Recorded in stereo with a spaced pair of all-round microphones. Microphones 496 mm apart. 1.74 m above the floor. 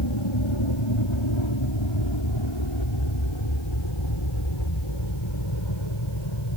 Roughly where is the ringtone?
No ringtone in this recording.